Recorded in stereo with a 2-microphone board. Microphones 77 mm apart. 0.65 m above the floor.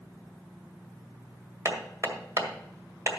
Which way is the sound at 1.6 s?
40° right (ahead or behind).